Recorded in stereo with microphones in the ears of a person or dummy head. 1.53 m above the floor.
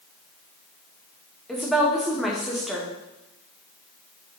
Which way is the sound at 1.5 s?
Centre (ahead or behind).